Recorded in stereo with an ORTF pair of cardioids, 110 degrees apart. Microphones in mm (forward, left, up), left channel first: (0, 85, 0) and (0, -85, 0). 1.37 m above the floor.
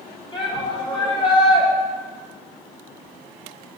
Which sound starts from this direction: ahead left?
A shout, at 0.3 s.